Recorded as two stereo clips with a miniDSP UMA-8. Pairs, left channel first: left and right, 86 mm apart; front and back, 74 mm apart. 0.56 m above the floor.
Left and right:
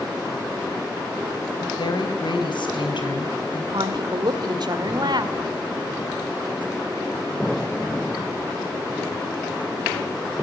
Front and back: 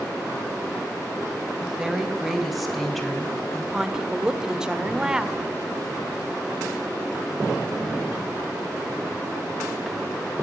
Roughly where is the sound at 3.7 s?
Right.